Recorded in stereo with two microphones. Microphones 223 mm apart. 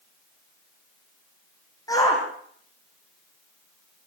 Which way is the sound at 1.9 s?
15° left (ahead or behind).